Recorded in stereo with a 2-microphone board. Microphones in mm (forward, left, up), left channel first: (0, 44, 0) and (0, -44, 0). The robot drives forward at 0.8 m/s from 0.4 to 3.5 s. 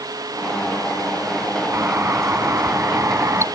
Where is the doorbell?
30° right (ahead or behind).